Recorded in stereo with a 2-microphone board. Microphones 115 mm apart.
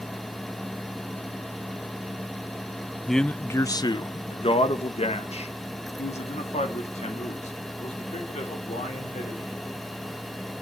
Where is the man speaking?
5° right (ahead or behind), 0.6 m; by 9.8 s 80° left, 4 m.